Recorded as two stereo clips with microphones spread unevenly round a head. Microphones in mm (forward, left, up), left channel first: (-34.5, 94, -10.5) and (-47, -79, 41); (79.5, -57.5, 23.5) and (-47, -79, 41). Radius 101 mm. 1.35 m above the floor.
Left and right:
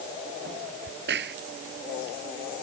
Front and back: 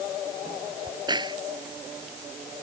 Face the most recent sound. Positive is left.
turn(degrees=-115)